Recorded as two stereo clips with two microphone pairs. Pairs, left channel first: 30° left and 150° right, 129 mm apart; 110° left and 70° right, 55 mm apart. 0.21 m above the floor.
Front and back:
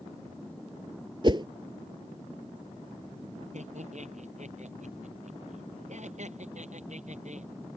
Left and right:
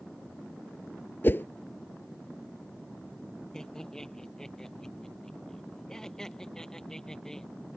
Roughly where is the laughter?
Behind.